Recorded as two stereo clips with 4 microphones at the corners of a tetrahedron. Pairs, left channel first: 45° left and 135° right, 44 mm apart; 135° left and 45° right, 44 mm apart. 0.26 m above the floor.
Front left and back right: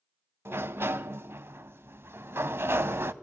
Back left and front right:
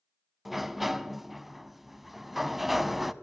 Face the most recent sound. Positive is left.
turn(degrees=-130)